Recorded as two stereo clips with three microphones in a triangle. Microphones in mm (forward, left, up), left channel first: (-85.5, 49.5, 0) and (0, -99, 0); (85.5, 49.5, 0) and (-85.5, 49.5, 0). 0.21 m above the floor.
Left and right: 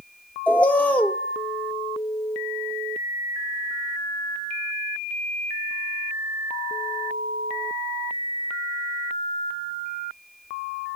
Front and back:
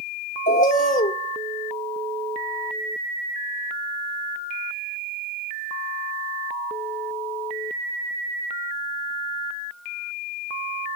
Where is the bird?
40° left, 0.8 m.